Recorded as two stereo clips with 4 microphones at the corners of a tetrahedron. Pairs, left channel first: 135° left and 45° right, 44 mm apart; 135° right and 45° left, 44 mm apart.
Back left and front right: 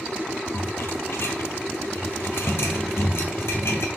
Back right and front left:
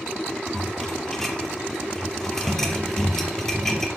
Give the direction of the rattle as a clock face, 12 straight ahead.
7 o'clock.